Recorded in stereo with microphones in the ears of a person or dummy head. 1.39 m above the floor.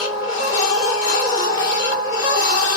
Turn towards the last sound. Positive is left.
turn(degrees=20)  # may be behind; listen again after turning